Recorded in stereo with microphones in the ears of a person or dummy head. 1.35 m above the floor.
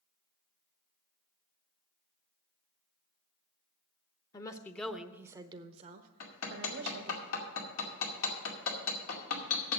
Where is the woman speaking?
20° left (ahead or behind), 0.8 m; by 7.2 s 75° right (ahead or behind), 1.2 m.